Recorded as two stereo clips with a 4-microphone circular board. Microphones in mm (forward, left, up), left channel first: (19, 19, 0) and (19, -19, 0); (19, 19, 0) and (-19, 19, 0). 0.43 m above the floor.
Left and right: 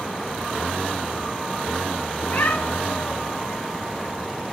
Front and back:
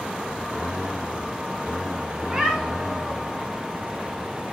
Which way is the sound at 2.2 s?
115° left.